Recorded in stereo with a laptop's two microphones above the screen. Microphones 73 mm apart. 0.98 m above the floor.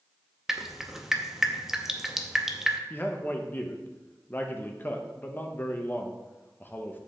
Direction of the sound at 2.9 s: 30° left (ahead or behind).